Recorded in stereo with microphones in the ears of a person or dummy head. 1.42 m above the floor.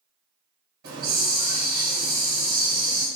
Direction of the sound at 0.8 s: 75° right (ahead or behind).